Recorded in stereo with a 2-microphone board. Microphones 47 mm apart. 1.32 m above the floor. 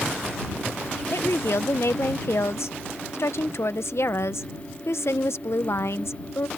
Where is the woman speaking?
70° left (ahead or behind).